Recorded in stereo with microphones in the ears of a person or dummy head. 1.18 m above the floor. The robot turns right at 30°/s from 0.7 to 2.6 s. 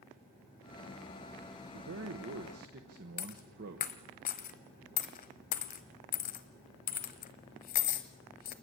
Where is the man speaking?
70° right (ahead or behind), 1.3 m; by 3.9 s 55° right (ahead or behind), 1.3 m.